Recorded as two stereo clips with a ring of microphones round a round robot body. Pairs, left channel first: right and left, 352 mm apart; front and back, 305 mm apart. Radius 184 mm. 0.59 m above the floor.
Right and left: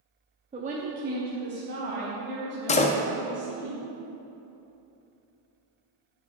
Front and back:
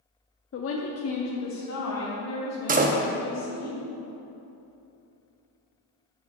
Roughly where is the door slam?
Behind right.